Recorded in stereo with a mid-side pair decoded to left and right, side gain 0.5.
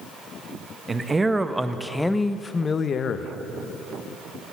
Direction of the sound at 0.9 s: 25° right.